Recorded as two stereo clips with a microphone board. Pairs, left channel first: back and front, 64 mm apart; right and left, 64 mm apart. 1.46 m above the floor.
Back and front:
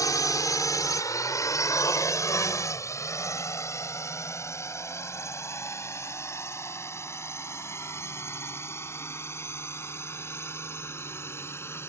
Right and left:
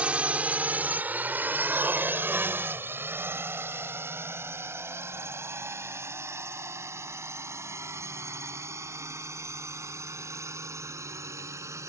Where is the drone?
160° left; by 11.9 s 130° left.